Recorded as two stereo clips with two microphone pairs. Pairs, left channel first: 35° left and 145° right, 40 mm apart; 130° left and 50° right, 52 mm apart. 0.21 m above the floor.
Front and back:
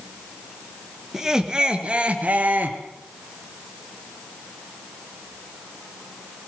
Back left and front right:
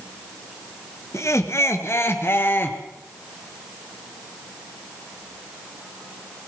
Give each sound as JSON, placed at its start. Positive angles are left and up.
{"t": 1.1, "sound": "laughter", "azimuth_deg": 140, "distance_m": 3.0}